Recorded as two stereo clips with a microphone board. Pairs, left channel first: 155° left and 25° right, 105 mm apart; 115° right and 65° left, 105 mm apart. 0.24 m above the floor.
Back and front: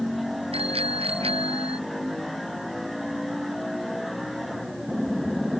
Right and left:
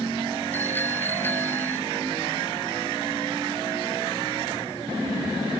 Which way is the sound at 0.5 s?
40° right.